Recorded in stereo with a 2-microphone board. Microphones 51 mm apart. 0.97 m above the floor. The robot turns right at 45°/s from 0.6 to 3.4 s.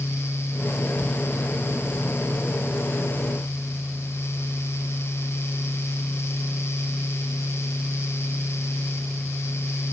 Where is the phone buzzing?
No phone buzzing in this recording.